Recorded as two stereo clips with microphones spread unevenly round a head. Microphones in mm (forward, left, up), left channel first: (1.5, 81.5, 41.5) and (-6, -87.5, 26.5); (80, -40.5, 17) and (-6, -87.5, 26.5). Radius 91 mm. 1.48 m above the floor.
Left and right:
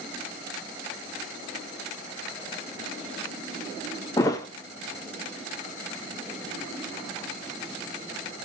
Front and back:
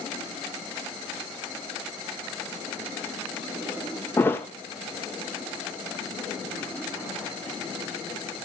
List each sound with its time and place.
4.2 s a thud: 90° left, 1.1 m